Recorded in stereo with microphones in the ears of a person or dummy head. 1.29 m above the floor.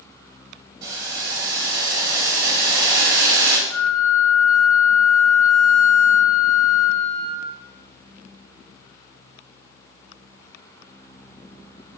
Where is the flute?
20° left (ahead or behind), 3 m.